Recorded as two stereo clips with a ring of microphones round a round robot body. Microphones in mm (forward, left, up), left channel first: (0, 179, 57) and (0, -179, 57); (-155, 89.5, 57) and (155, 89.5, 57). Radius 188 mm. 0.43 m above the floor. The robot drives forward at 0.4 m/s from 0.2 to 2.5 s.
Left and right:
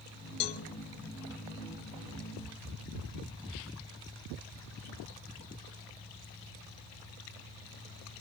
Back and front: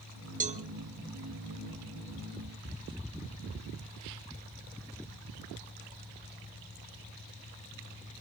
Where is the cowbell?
65° left, 1.1 m; by 0.6 s 70° left, 1.1 m.